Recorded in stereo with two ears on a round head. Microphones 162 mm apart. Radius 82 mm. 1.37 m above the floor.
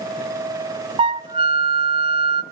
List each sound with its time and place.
1.0 s a flute: 25° right (ahead or behind), 0.6 m